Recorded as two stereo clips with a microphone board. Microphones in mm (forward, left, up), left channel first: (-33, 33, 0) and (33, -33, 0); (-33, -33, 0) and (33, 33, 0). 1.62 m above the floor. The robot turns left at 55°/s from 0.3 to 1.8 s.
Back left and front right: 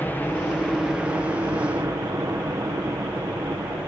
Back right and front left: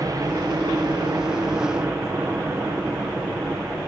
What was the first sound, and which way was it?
A helicopter, 70° left.